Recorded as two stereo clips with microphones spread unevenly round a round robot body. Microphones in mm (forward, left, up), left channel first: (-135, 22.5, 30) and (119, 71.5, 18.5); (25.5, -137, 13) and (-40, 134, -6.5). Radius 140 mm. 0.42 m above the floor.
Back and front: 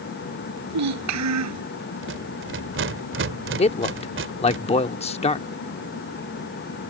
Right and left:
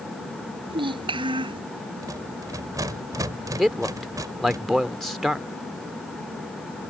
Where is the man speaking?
175° right.